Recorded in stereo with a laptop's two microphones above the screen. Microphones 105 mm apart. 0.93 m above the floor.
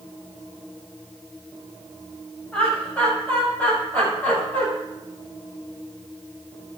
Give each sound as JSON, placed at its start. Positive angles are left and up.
{"t": 2.5, "sound": "laughter", "side_deg": 15, "distance_m": 6.0}